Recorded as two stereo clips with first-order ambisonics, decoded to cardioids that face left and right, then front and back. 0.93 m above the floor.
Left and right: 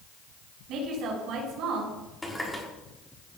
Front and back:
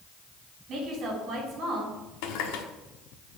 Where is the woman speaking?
125° right, 5 m.